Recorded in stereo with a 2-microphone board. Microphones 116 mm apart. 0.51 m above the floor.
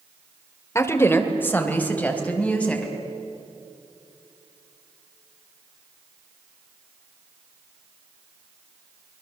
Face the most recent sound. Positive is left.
turn(degrees=10)  # may be behind; listen again after turning